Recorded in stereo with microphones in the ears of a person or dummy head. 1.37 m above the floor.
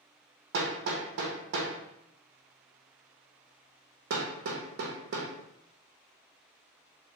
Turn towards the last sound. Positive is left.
turn(degrees=-60)  # may be behind; listen again after turning